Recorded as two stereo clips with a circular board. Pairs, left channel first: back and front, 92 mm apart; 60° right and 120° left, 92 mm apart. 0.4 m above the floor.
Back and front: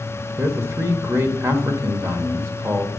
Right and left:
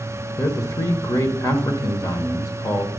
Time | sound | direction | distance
0.4 | a man speaking | 40° right | 1.3 m